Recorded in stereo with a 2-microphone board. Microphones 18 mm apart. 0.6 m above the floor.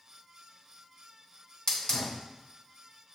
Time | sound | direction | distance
1.7 | a hiss | 40° left (ahead or behind) | 1.5 m